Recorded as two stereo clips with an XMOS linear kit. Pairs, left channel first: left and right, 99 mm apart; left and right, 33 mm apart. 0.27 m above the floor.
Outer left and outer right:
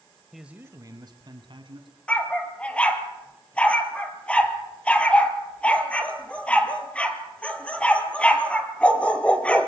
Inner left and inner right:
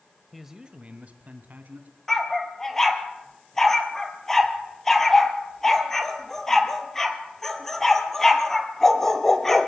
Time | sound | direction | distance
0.3 | a man speaking | centre (ahead or behind) | 1.0 m
2.1 | a dog barking | 15° left (ahead or behind) | 1.8 m